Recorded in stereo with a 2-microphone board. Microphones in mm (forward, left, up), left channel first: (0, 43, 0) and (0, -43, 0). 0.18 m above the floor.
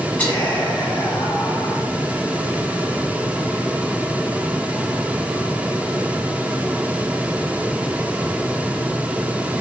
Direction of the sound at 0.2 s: 20° left (ahead or behind).